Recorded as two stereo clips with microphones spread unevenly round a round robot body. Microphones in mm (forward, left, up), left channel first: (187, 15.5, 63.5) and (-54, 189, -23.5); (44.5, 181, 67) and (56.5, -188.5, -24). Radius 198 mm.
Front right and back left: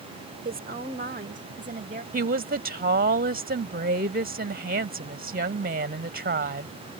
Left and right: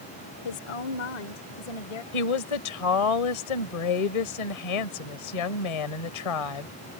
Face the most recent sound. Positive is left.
turn(degrees=90)